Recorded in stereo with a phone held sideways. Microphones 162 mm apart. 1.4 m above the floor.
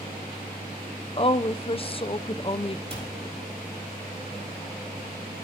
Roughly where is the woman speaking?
Left.